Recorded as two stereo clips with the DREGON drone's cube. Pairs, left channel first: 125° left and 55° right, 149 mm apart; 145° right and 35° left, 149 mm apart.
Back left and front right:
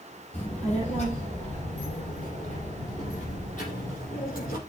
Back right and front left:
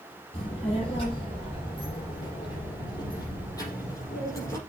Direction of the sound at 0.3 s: 165° left.